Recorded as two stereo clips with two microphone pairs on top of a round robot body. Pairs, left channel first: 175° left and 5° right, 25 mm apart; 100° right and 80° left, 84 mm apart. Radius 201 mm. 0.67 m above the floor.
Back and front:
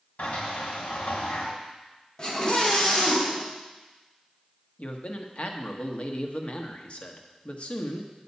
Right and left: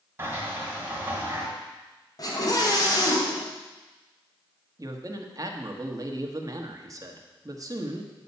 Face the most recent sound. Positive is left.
turn(degrees=135)